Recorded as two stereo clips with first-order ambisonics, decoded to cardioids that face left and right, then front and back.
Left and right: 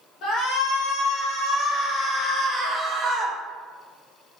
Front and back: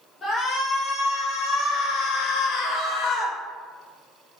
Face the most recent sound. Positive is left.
turn(degrees=-40)